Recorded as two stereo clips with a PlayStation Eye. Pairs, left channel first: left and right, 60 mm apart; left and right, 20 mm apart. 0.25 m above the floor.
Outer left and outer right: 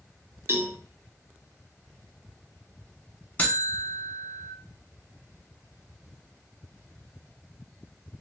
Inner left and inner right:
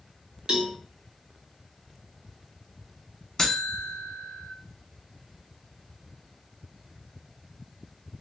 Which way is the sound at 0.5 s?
45° right (ahead or behind).